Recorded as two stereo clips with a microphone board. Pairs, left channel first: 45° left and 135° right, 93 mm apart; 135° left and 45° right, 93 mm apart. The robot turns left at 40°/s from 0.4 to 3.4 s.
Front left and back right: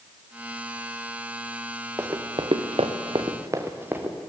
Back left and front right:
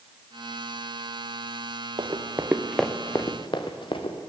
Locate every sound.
2.0 s running footsteps: 70° right, 1.5 m; by 4.2 s 150° left, 2 m